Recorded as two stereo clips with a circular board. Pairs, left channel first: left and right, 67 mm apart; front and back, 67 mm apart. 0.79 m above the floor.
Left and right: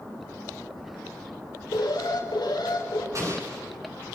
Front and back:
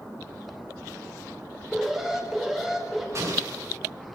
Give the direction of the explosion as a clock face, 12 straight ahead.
4 o'clock.